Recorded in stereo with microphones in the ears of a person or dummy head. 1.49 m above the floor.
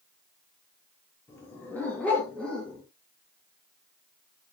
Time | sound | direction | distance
1.3 | a dog barking | 15° left (ahead or behind) | 7 m